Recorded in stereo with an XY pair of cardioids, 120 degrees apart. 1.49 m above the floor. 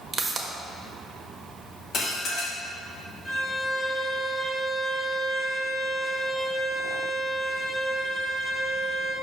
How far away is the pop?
About 1.2 m.